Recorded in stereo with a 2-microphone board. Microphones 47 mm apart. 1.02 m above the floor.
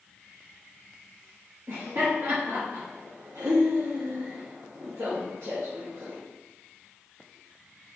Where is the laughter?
70° right (ahead or behind), 1.2 m.